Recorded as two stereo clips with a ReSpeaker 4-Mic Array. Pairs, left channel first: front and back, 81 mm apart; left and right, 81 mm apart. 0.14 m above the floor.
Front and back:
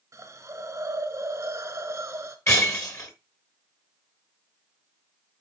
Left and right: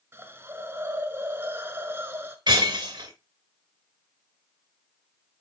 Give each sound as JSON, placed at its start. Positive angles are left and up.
{"t": 0.1, "sound": "a hiss", "azimuth_deg": -145, "distance_m": 1.1}
{"t": 2.5, "sound": "breaking glass", "azimuth_deg": -55, "distance_m": 2.5}